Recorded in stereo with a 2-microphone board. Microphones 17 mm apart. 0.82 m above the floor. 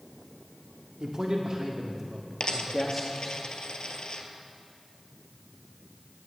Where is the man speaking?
50° right (ahead or behind), 1.8 m; by 3.4 s 10° left (ahead or behind), 1.2 m.